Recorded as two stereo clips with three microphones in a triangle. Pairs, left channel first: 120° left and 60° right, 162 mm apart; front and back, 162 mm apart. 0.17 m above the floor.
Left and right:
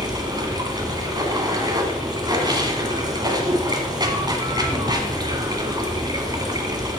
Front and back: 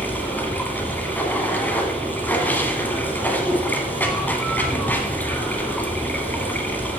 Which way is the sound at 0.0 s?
65° right.